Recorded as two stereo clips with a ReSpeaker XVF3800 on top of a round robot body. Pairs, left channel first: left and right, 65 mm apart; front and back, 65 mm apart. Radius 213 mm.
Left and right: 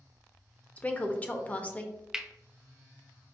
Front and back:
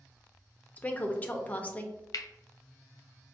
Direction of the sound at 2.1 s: 10° right.